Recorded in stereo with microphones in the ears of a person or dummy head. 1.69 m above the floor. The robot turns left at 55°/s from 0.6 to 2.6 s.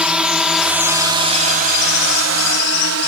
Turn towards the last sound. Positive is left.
turn(degrees=-65)  # may be behind; listen again after turning